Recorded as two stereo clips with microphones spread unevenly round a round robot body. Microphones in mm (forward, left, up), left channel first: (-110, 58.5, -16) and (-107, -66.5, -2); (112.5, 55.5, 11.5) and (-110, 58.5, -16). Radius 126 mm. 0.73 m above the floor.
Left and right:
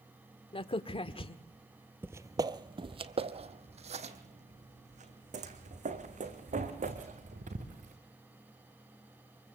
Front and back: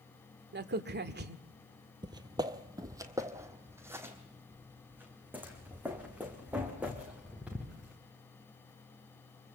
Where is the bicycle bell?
No bicycle bell in this recording.